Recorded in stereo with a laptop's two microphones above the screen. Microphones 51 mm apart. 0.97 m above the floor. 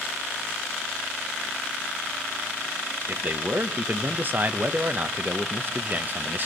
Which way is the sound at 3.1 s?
40° right (ahead or behind).